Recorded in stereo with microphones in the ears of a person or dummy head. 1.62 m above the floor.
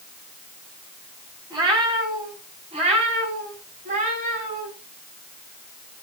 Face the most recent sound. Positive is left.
turn(degrees=-40)  # may be behind; listen again after turning